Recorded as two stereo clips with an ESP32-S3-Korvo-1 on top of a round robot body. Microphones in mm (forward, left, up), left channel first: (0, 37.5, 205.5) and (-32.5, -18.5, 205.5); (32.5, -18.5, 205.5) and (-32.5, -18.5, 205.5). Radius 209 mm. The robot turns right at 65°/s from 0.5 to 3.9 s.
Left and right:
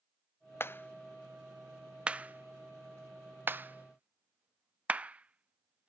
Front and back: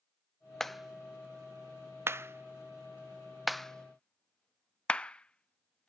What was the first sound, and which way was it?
A clap, 80° left.